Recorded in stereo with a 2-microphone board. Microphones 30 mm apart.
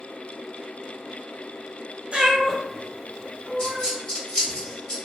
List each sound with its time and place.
2.1 s a cat meowing: 40° right (ahead or behind), 0.9 m; by 3.9 s 60° left (ahead or behind), 1.6 m
3.6 s a dropped coin: 30° left (ahead or behind), 1.4 m